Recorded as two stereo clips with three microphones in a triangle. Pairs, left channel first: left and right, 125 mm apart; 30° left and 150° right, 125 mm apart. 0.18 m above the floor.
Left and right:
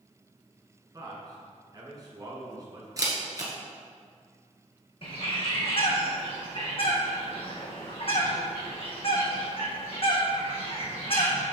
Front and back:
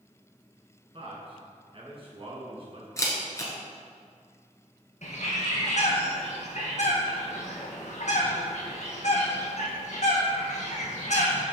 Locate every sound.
0.9 s a man speaking: 135° right, 2.5 m
3.0 s a camera shutter: 30° right, 1.6 m
5.0 s a bird: 50° left, 1.8 m